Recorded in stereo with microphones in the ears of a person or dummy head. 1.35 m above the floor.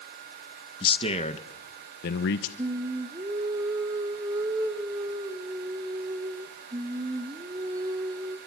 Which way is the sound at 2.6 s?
20° right (ahead or behind).